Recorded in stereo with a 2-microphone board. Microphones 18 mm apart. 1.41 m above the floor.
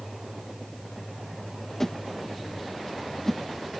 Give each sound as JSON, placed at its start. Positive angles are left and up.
{"t": 1.8, "sound": "a whoosh", "side_deg": 25}